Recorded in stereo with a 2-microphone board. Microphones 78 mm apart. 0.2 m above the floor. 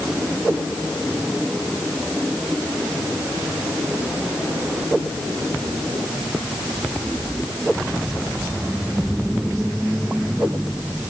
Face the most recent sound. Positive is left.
No sound to turn to.